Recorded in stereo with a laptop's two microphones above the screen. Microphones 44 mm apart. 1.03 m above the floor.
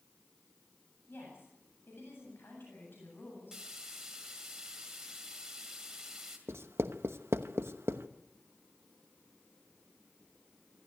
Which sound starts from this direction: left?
A woman speaking, at 1.1 s.